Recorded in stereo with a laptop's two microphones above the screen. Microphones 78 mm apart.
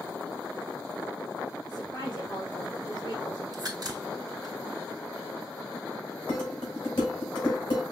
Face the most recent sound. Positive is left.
turn(degrees=55)  # may be behind; listen again after turning